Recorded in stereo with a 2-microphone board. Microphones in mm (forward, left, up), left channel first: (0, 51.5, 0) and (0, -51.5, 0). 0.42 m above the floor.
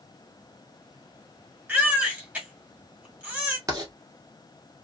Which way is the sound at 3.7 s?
35° right (ahead or behind).